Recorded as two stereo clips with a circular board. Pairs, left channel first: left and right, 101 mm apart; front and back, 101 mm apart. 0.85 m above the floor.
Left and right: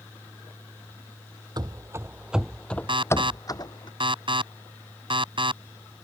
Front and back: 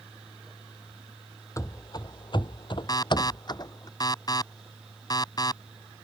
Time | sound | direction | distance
1.6 | running footsteps | 50° right | ?
2.9 | an alarm | 50° right | ?